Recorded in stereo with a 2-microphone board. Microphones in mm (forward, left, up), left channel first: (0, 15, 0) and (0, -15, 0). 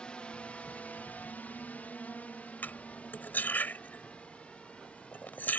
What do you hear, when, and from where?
0.0 s a drone: 30° left (ahead or behind); by 5.6 s 40° left (ahead or behind)
2.6 s cutlery clinking: 80° left